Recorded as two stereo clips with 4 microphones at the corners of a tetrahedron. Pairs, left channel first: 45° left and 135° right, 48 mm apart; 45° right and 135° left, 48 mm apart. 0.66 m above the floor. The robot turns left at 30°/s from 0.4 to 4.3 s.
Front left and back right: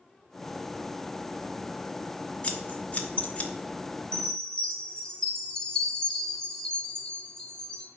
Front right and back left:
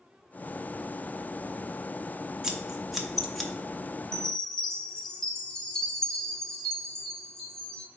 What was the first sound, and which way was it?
Scissors, 70° left.